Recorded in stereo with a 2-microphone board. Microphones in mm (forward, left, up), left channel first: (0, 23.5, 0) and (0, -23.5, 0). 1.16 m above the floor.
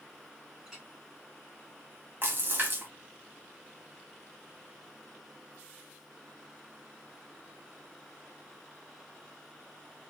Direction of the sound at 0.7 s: 15° right (ahead or behind).